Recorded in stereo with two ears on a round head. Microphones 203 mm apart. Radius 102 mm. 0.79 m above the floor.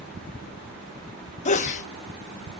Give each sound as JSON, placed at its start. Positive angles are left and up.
{"t": 1.4, "sound": "a sneeze", "side_deg": 30, "distance_m": 0.7}